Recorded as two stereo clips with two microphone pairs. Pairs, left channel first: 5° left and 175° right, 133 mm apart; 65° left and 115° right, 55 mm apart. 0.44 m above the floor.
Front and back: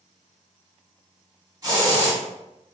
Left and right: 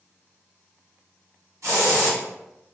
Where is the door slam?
I don't hear a door slam.